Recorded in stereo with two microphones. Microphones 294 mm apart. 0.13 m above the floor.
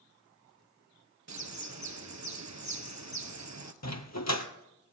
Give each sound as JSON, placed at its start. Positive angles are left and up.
{"t": 1.3, "sound": "a bird", "side_deg": -65, "distance_m": 1.1}
{"t": 3.8, "sound": "a dog barking", "side_deg": 65, "distance_m": 1.1}